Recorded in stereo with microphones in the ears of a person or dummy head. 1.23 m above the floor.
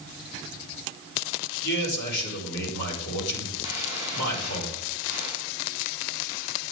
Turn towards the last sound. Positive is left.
turn(degrees=35)  # may be behind; listen again after turning